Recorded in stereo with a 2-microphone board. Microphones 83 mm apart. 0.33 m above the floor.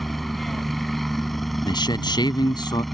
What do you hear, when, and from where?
0.0 s a helicopter: centre (ahead or behind)
1.6 s a man speaking: 65° left (ahead or behind)